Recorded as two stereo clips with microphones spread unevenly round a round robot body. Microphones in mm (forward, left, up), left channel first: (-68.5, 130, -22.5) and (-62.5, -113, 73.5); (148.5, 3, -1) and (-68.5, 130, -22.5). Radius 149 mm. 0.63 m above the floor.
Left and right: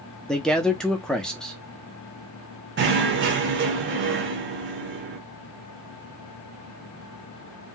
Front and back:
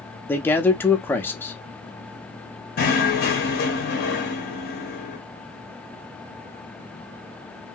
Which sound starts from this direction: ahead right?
Knocking, at 2.8 s.